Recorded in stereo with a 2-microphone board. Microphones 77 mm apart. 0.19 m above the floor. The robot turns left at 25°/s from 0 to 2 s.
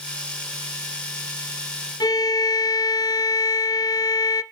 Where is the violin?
65° left (ahead or behind), 0.6 m.